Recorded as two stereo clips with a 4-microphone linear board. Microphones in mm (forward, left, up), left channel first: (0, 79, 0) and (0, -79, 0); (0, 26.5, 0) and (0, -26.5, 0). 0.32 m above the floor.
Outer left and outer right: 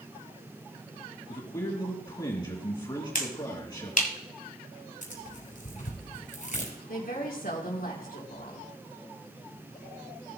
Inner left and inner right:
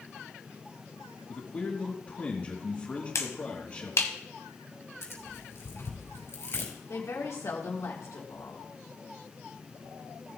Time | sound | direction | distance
1.3 | a man speaking | 30° left (ahead or behind) | 3 m
3.1 | a finger snap | 60° left (ahead or behind) | 1.6 m
5.0 | tearing paper | 50° left (ahead or behind) | 5.5 m
6.9 | a woman speaking | 70° left (ahead or behind) | 4 m